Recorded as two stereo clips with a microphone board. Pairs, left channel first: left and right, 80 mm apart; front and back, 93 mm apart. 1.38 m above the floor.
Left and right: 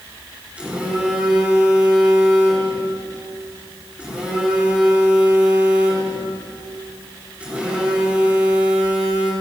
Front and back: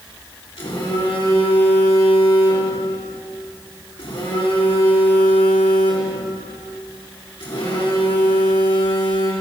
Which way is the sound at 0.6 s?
15° right.